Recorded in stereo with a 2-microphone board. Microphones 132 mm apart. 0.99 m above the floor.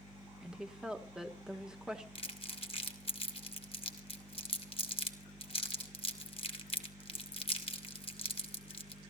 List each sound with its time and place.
0.4 s a woman speaking: 5° right (ahead or behind), 1.8 m
2.1 s crumpling: 45° left (ahead or behind), 2 m